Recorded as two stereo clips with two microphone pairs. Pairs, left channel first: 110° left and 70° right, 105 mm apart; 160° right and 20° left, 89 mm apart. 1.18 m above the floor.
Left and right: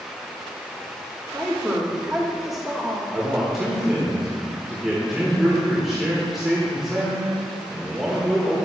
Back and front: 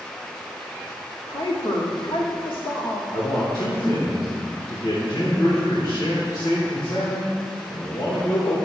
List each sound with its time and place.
1.3 s a woman speaking: 155° right, 2.5 m
3.1 s a man speaking: 155° right, 1.8 m